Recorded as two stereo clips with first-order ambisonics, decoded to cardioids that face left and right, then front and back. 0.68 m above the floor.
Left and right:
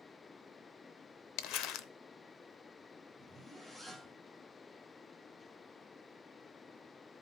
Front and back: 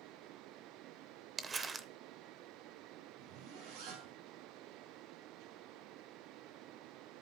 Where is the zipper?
175° left, 5 m.